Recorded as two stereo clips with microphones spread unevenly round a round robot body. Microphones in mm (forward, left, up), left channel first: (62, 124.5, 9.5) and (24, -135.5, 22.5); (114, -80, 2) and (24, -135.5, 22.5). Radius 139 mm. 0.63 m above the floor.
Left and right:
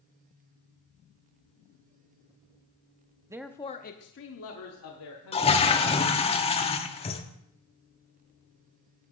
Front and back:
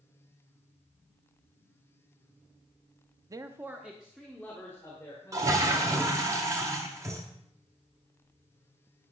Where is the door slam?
I don't hear a door slam.